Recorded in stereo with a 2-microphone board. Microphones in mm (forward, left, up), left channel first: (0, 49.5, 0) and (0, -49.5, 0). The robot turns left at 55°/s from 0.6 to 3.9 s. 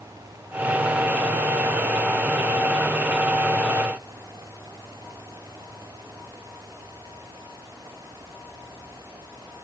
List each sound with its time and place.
Only background noise.